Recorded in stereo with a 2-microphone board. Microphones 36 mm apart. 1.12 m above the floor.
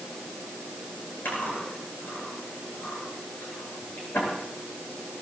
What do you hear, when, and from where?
1.2 s chewing: 90° left, 9.5 m